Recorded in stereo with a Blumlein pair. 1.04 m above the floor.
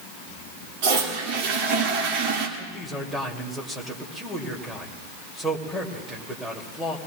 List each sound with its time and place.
0.8 s a toilet flushing: 45° right, 2.5 m
2.6 s a man speaking: 10° right, 2.5 m